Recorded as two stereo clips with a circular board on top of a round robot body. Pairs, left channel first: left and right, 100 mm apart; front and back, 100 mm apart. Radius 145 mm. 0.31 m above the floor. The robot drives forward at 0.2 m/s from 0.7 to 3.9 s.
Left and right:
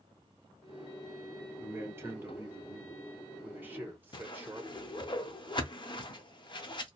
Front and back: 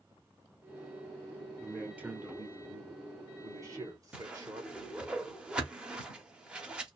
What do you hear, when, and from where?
1.6 s a man speaking: 110° right, 0.9 m; by 4.8 s 150° right, 1.0 m
4.1 s a whoosh: 100° left, 0.9 m